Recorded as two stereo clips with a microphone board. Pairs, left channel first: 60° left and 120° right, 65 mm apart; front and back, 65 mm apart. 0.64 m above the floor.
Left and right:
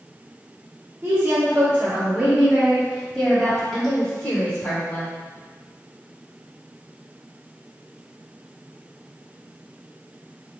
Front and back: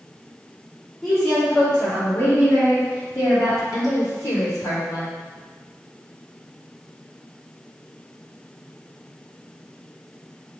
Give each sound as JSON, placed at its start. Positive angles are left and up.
{"t": 1.0, "sound": "a woman speaking", "azimuth_deg": -90, "distance_m": 1.4}